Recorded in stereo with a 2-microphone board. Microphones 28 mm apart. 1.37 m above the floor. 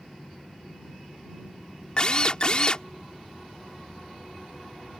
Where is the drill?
35° left (ahead or behind).